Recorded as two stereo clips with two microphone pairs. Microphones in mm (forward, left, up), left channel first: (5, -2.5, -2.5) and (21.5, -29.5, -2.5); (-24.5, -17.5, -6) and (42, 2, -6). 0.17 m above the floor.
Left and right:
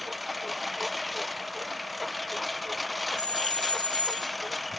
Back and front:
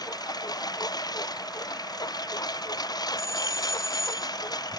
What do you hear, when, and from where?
0.0 s a lawn mower: 145° right
3.2 s a doorbell: 160° left